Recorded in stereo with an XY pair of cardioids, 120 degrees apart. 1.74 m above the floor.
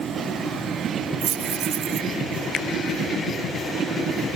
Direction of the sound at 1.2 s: 60° right.